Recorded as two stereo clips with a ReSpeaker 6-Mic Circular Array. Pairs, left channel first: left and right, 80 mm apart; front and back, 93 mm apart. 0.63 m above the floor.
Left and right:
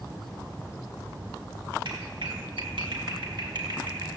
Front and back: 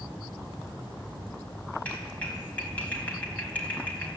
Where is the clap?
75° right, 4 m.